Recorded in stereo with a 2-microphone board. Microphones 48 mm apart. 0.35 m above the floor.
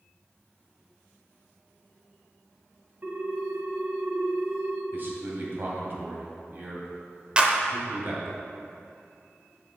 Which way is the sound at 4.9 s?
50° right (ahead or behind).